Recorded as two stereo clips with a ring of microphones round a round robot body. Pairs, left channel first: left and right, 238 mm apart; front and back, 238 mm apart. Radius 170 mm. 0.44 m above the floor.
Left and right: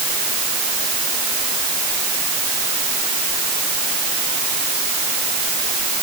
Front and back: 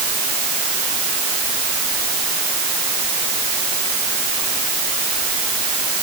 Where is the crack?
No crack in this recording.